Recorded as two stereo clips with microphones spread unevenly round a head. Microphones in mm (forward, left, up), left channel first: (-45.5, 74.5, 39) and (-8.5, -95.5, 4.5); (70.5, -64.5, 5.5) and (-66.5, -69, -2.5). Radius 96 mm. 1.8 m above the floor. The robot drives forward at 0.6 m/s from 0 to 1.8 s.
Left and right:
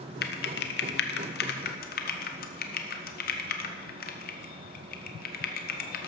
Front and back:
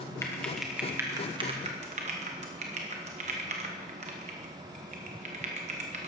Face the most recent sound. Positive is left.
turn(degrees=125)